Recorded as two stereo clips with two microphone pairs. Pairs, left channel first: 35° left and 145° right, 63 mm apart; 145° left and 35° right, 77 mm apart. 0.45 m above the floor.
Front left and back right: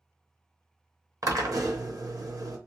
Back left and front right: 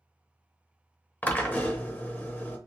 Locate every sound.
1.2 s a drill: 145° right, 0.7 m